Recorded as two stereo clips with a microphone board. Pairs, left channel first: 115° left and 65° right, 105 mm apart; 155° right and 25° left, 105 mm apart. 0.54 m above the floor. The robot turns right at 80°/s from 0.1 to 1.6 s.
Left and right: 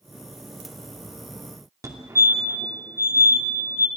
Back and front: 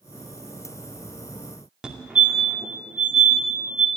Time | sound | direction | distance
1.8 | a fire alarm | 50° right | 2.5 m